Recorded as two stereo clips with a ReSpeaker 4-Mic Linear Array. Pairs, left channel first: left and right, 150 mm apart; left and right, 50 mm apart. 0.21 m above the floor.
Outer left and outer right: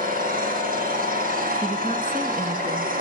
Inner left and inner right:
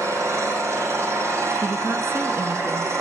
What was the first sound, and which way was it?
An engine running, 70° right (ahead or behind).